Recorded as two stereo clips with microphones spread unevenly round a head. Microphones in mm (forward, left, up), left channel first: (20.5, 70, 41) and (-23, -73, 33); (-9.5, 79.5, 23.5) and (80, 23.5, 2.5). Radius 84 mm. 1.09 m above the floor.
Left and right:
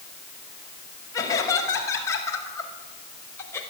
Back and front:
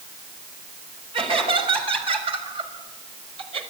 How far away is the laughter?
About 6.5 m.